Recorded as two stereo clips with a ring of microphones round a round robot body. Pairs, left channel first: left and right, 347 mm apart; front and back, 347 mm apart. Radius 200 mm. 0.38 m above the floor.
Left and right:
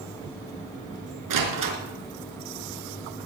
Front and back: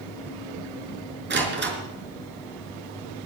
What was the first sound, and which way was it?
A door slam, 120° right.